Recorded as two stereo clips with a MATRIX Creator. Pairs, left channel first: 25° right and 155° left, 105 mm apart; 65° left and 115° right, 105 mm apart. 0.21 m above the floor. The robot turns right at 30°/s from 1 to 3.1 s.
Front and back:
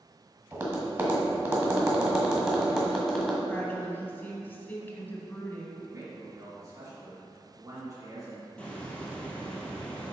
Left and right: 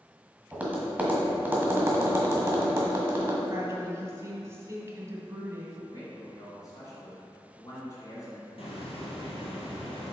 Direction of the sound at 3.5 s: 75° right.